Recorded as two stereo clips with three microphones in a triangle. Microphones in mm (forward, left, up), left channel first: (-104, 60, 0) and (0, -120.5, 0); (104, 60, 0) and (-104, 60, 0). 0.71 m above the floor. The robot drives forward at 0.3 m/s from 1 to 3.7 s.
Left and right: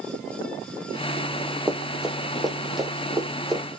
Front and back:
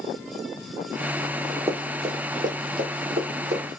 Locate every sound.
1.7 s running footsteps: 135° right, 0.7 m; by 3.8 s 150° right, 2 m